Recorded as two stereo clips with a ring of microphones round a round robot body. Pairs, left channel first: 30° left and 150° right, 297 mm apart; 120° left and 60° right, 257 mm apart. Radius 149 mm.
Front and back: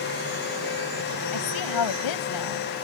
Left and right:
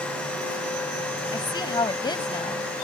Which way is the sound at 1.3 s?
45° left.